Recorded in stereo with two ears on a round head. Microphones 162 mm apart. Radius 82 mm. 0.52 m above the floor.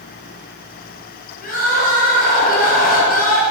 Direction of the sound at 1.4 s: 45° left (ahead or behind).